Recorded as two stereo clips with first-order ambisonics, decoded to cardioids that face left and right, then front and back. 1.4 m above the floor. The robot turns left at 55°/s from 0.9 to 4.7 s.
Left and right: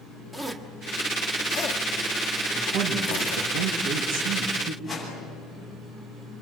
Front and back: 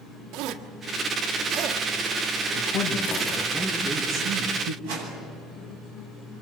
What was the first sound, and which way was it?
A zipper, 175° left.